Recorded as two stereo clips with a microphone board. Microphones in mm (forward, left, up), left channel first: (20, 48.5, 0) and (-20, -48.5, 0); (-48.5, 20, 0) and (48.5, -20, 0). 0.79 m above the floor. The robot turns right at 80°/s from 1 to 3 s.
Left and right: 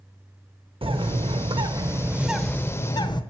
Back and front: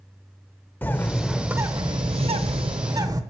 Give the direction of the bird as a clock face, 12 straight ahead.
4 o'clock.